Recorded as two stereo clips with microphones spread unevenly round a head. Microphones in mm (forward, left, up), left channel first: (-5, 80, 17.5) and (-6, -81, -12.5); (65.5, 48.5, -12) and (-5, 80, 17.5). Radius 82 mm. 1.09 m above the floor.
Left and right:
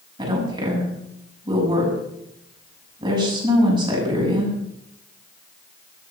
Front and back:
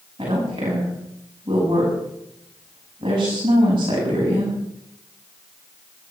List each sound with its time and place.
0.2 s a woman speaking: 155° right, 8 m